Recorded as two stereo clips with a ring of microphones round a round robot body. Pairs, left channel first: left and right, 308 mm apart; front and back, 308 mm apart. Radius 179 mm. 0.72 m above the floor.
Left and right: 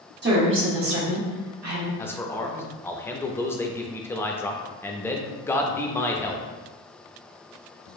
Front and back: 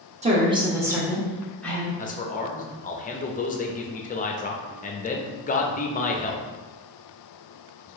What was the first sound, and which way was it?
A woman speaking, 125° right.